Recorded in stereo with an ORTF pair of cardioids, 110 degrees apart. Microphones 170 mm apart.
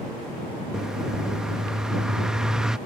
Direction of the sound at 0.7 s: 5° right.